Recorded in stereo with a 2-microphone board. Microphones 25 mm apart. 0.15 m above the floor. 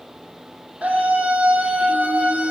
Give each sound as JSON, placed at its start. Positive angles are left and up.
{"t": 0.8, "sound": "a scream", "side_deg": -80, "distance_m": 6.5}